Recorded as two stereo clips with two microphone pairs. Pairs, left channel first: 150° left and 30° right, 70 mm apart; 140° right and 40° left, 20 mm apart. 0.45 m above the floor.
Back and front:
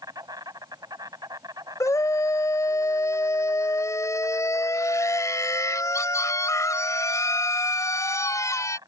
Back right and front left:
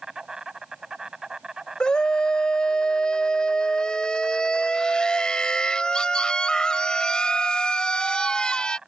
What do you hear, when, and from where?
0.0 s an insect: 15° right
1.8 s a scream: straight behind